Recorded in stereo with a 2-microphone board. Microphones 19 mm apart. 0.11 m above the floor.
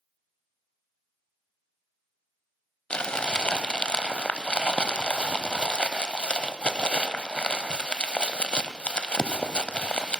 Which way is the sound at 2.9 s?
55° left (ahead or behind).